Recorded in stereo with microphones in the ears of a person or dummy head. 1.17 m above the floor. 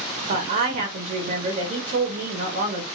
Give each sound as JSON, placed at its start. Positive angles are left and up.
{"t": 0.3, "sound": "a woman speaking", "side_deg": -40, "distance_m": 0.8}